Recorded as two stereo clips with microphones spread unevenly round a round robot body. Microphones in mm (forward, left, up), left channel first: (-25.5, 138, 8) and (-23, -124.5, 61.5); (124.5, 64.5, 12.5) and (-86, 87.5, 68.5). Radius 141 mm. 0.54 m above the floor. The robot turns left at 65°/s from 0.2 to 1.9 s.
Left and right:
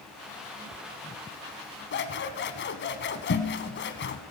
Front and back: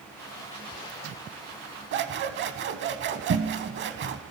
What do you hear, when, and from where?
1.9 s scissors: 145° left, 0.9 m